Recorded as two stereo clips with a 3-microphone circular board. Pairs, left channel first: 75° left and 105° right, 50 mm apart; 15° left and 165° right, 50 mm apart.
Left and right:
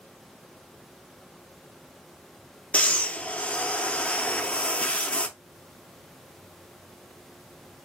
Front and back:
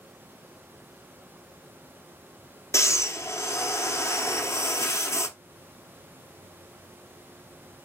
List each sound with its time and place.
2.7 s breathing: 10° left, 0.6 m